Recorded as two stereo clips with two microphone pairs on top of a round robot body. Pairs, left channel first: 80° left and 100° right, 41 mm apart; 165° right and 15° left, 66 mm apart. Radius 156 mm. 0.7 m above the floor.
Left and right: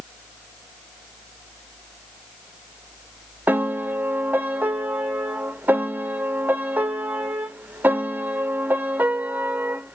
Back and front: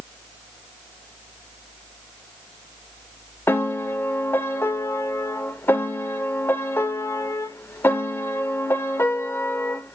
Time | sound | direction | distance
3.5 | a piano | 130° right | 0.7 m